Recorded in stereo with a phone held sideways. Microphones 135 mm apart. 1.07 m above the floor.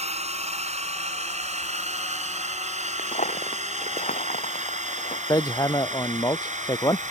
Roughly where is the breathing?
I don't hear breathing.